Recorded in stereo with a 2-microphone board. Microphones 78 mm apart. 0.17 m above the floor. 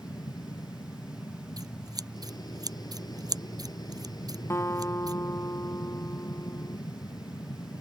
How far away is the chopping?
No chopping in this recording.